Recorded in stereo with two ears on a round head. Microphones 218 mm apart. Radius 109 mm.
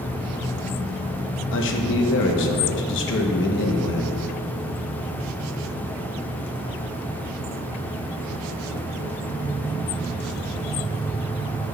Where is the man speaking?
50° left (ahead or behind), 0.8 m.